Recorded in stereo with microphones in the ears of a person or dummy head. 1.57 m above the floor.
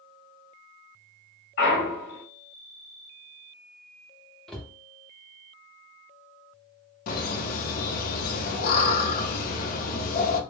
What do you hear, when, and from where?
1.6 s a clunk: 50° left (ahead or behind), 1.3 m
4.5 s a cupboard door: 5° left (ahead or behind), 0.5 m
7.1 s laughter: 50° left (ahead or behind), 0.6 m